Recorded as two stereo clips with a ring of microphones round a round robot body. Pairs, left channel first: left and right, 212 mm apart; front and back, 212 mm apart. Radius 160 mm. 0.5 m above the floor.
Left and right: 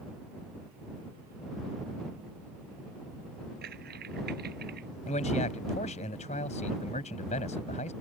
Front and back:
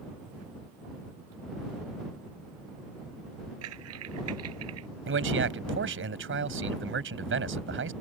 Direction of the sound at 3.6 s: 150° right.